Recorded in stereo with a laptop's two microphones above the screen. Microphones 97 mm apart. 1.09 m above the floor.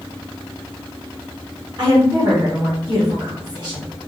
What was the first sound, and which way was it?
A woman speaking, 55° right (ahead or behind).